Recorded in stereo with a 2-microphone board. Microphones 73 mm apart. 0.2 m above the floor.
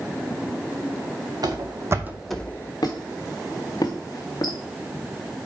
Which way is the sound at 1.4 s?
65° right (ahead or behind).